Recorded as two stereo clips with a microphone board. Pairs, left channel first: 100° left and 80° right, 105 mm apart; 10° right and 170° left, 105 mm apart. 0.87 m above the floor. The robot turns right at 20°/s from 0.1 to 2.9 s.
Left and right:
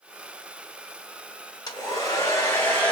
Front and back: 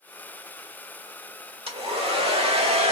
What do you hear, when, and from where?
1.7 s a hair dryer: 150° left, 1.1 m; by 2.9 s 175° left, 1.1 m